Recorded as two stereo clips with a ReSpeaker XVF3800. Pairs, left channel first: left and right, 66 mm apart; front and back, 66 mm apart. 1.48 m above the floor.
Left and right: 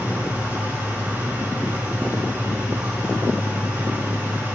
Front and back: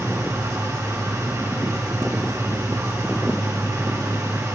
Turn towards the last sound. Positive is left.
turn(degrees=-150)